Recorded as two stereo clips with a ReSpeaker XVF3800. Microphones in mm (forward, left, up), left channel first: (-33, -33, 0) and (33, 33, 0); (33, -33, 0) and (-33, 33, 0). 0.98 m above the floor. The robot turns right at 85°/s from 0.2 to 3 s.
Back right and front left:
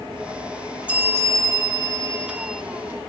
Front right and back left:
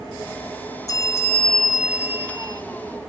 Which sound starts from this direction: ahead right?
A bell, at 0.9 s.